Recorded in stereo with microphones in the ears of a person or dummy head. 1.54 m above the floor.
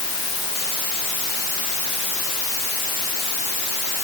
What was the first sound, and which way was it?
Only background noise.